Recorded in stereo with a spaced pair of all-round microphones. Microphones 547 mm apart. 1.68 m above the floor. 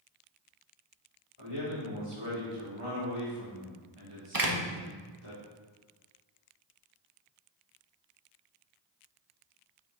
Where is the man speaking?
65° left (ahead or behind), 4 m.